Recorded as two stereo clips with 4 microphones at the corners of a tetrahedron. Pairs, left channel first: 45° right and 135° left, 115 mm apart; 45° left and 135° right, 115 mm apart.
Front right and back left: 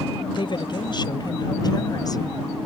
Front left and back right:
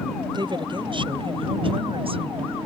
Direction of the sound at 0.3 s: 90° right.